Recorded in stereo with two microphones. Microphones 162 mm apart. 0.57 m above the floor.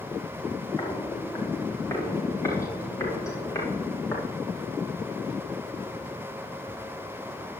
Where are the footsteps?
20° left (ahead or behind), 6.5 m.